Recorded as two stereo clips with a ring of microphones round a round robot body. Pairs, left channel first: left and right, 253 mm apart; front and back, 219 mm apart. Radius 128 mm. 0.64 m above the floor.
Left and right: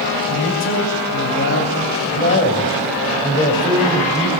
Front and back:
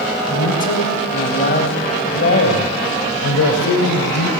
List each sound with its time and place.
0.3 s a man speaking: 55° left, 4 m; by 4.3 s 10° left, 3.5 m